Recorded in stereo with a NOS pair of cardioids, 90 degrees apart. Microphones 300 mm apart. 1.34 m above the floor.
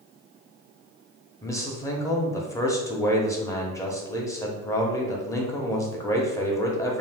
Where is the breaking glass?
I don't hear breaking glass.